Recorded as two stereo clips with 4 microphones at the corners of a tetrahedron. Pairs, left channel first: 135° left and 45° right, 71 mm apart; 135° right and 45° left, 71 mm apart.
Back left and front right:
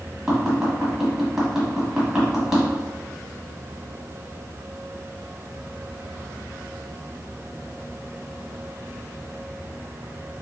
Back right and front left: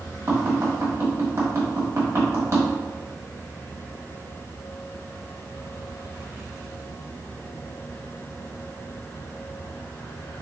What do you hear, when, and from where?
0.3 s tapping: 35° left, 1.4 m